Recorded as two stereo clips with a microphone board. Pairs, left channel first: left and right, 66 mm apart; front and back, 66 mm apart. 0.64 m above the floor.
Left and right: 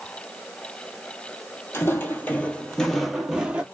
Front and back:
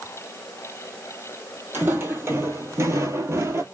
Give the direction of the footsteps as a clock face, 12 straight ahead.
8 o'clock.